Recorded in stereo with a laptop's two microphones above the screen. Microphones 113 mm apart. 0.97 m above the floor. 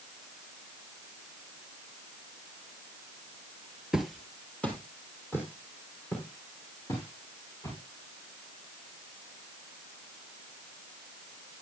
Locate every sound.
3.9 s footsteps: 5° right (ahead or behind), 1.2 m; by 7.8 s 25° left (ahead or behind), 6.5 m